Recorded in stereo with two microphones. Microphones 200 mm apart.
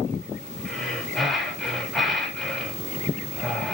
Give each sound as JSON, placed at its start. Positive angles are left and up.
{"t": 0.7, "sound": "breathing", "side_deg": 0, "distance_m": 1.7}